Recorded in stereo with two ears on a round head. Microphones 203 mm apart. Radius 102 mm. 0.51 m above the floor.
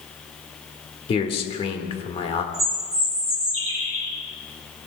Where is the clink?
No clink in this recording.